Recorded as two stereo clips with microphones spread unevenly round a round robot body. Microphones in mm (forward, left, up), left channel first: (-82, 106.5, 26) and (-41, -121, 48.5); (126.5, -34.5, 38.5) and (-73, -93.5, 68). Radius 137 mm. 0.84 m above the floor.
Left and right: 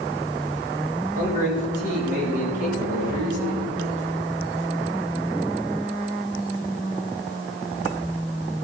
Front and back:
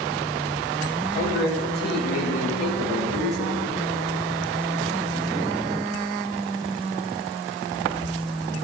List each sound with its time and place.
1.1 s a man speaking: 15° right, 6.5 m